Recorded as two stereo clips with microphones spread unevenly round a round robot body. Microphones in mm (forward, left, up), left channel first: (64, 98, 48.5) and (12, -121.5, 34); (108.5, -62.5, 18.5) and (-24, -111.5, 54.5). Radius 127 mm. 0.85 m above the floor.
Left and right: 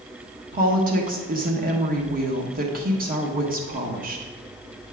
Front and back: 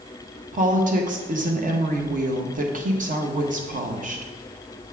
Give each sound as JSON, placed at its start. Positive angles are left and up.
{"t": 0.5, "sound": "a woman speaking", "azimuth_deg": -140, "distance_m": 1.3}